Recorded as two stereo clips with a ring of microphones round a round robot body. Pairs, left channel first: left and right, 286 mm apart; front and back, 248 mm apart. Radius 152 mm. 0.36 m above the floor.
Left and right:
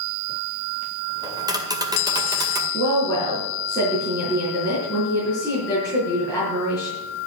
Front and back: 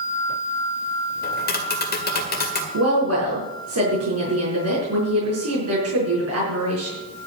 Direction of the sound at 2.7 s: 165° left.